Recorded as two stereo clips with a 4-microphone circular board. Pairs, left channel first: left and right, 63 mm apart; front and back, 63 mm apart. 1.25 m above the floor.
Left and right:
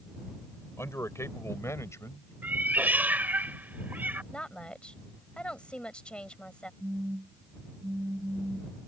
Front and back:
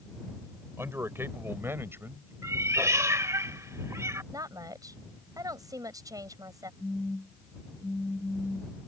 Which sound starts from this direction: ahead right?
A phone buzzing, at 6.8 s.